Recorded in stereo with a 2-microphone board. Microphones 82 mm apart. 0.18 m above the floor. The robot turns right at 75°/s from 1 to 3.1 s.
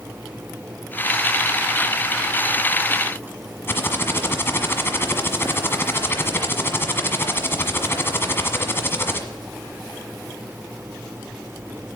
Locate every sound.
3.7 s typing on a keyboard: 30° left (ahead or behind), 1.4 m